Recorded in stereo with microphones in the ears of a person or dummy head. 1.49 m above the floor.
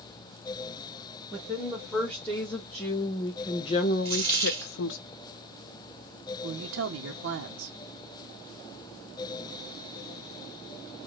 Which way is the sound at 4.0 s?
30° right (ahead or behind).